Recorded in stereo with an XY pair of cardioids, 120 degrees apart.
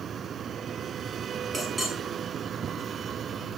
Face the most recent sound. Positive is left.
turn(degrees=-20)